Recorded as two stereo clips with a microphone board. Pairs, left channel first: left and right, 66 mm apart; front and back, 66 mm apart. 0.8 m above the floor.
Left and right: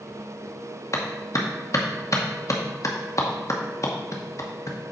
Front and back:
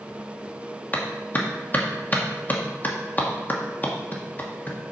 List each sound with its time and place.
0.9 s a clap: 60° left, 1.0 m